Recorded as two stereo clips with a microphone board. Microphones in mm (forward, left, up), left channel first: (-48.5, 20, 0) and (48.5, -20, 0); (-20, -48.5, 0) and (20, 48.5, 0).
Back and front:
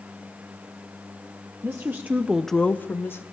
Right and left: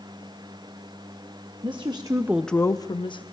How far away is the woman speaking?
About 1.1 m.